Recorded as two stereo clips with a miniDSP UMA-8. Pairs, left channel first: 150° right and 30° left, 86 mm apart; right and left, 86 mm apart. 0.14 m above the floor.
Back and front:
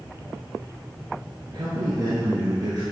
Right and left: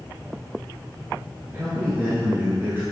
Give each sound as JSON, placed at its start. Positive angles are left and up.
{"t": 1.5, "sound": "a man speaking", "azimuth_deg": 35, "distance_m": 1.6}